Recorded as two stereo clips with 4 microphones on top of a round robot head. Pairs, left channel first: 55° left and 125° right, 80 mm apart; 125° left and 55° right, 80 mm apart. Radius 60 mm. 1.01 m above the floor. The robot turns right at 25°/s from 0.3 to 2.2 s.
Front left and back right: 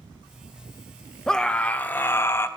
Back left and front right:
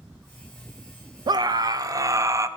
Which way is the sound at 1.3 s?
30° right.